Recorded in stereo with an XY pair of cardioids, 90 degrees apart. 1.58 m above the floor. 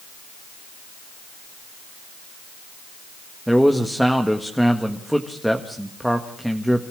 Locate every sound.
3.5 s a man speaking: straight ahead, 1.7 m